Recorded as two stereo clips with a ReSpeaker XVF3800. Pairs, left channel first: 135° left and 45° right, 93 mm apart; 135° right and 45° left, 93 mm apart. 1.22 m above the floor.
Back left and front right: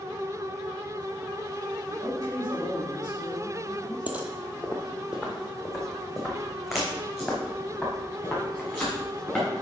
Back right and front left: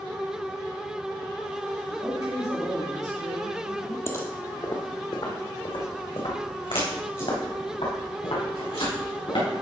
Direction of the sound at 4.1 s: 105° right.